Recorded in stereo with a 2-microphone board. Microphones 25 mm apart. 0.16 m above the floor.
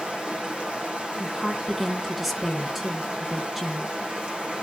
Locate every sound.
0.0 s running water: 45° right (ahead or behind), 2.5 m
1.2 s a woman speaking: centre (ahead or behind), 2 m